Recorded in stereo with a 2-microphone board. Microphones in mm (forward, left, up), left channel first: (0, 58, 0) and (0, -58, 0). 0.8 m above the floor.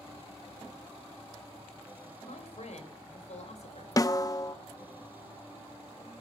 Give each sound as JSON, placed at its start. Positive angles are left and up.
{"t": 2.2, "sound": "a man speaking", "side_deg": 75, "distance_m": 4.0}
{"t": 4.0, "sound": "a snare drum", "side_deg": 30, "distance_m": 0.8}